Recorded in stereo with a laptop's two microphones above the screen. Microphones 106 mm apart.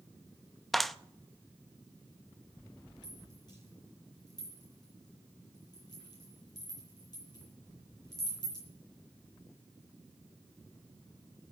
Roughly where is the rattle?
Left.